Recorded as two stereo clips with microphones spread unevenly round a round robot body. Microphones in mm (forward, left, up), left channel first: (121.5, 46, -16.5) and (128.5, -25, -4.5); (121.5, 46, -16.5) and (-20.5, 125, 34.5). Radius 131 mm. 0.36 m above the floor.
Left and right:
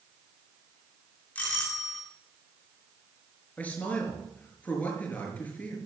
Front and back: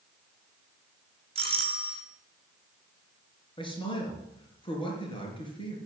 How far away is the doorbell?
About 2 m.